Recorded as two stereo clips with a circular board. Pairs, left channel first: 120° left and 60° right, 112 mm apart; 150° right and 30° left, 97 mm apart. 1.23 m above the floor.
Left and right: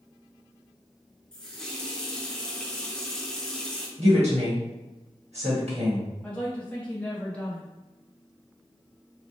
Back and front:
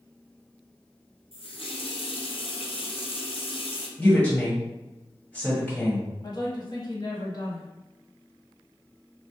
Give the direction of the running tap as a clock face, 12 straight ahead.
5 o'clock.